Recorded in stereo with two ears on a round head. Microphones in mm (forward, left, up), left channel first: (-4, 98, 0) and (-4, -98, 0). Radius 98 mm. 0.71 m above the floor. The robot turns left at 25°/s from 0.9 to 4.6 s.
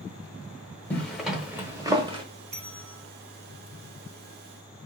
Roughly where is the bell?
Right.